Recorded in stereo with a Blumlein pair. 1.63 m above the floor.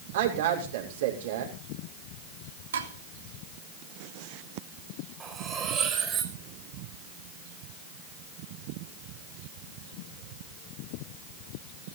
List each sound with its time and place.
0.1 s a woman speaking: 60° right, 6.5 m
2.7 s dishes clattering: 65° right, 3 m
5.2 s cutlery clinking: 20° right, 5 m